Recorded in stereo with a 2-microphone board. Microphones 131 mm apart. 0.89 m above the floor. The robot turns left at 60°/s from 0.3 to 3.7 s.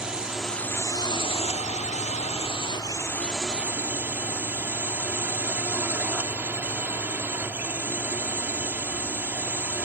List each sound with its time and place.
0.0 s a drone: 175° right; by 9.8 s 15° right